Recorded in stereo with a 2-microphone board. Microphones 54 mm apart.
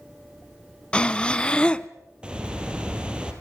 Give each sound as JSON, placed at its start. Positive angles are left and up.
{"t": 0.9, "sound": "breathing", "side_deg": 15, "distance_m": 0.6}
{"t": 2.2, "sound": "a bird", "side_deg": -15, "distance_m": 3.0}